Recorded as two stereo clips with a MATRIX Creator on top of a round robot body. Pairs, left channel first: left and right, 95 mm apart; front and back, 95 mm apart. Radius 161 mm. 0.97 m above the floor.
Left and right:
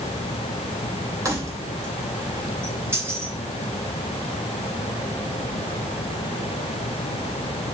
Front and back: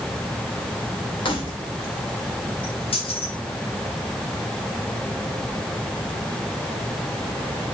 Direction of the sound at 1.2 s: 35° right.